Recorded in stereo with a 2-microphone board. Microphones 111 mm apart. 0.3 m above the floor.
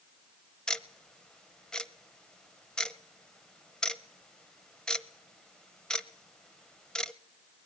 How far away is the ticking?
About 0.9 m.